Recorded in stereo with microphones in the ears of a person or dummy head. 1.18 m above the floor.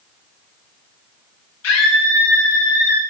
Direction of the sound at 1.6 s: 70° left (ahead or behind).